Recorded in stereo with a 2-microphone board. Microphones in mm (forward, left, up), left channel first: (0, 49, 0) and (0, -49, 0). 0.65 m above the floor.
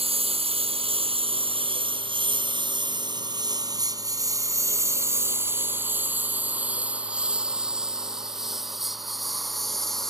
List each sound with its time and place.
0.0 s a lawn mower: 80° right; by 10.1 s 5° left (ahead or behind)